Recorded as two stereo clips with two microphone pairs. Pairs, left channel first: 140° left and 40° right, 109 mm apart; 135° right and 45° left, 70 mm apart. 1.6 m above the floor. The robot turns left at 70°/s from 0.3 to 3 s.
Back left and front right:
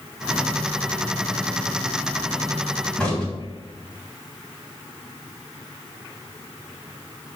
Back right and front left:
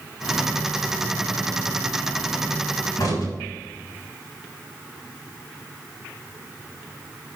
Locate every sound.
3.0 s a crack: 135° right, 3 m; by 3.3 s 140° right, 3 m